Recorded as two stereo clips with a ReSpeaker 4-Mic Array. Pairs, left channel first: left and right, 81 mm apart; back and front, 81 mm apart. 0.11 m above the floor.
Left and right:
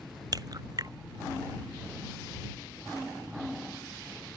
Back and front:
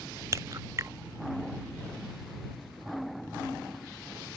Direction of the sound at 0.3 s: 50° right.